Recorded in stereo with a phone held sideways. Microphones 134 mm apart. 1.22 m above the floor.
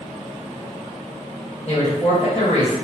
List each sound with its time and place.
1.7 s a woman speaking: 55° left (ahead or behind), 1.3 m